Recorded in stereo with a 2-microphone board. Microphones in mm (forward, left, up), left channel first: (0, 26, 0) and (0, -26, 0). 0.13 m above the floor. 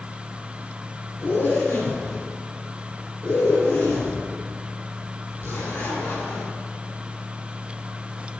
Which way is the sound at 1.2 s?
50° left (ahead or behind).